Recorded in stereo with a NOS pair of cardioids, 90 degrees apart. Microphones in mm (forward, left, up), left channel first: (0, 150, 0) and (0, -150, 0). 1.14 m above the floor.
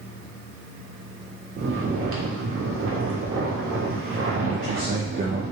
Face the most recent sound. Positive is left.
turn(degrees=-30)